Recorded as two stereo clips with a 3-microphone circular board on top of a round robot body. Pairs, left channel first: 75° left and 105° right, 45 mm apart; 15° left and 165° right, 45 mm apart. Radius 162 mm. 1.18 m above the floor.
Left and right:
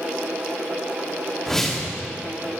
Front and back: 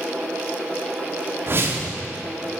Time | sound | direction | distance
1.5 | a whoosh | 155° left | 1.4 m